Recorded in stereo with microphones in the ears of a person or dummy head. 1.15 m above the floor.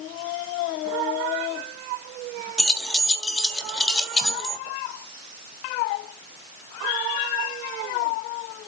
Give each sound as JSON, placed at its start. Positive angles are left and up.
{"t": 2.6, "sound": "keys jangling", "side_deg": 0, "distance_m": 1.5}